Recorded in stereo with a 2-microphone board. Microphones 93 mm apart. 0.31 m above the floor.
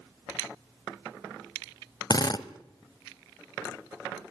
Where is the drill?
50° left (ahead or behind), 0.8 m.